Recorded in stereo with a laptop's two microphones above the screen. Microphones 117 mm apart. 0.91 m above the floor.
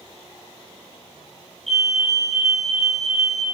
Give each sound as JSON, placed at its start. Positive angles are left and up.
{"t": 1.7, "sound": "a fire alarm", "side_deg": 0, "distance_m": 2.5}